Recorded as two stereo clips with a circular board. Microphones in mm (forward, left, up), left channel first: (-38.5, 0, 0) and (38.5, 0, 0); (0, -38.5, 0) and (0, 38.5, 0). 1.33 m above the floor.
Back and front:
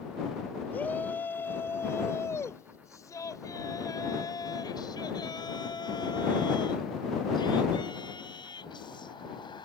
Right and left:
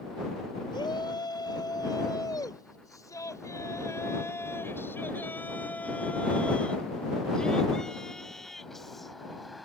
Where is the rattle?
No rattle in this recording.